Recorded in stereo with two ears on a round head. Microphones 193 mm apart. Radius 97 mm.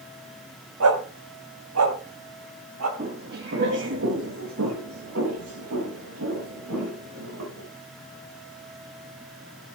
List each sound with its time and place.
0.8 s a dog barking: 80° right, 2.5 m; by 2.9 s 75° right (ahead or behind), 3.5 m
3.0 s footsteps: 35° right (ahead or behind), 2 m; by 7.7 s 85° right, 8.5 m